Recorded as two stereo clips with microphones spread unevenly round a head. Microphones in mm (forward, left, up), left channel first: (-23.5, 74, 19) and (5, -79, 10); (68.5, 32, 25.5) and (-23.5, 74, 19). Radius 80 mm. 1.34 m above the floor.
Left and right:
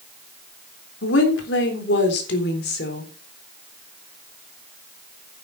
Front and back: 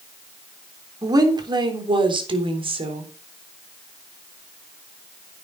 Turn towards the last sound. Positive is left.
turn(degrees=130)